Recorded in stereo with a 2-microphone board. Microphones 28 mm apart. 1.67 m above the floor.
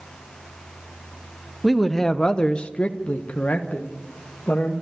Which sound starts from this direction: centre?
A man speaking, at 1.6 s.